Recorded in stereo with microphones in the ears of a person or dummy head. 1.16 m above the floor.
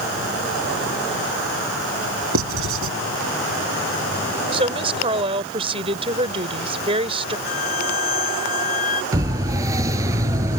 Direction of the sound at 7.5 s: 45° left (ahead or behind).